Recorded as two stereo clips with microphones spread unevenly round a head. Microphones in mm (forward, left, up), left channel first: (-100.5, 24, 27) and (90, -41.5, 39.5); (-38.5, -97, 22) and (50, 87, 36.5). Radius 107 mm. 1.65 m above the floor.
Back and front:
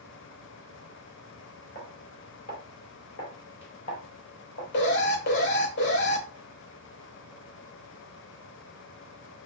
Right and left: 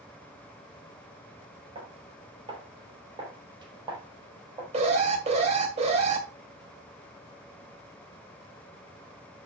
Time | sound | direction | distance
1.8 | footsteps | 115° left | 2.5 m
4.7 | an alarm | 125° left | 2.5 m